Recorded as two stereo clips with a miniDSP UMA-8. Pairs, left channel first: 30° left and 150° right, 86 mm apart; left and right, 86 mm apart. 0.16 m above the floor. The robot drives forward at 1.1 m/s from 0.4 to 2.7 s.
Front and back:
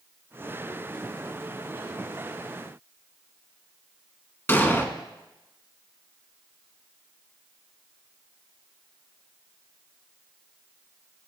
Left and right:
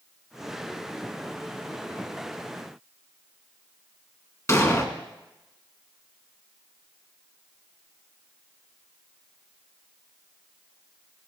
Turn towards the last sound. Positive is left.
turn(degrees=75)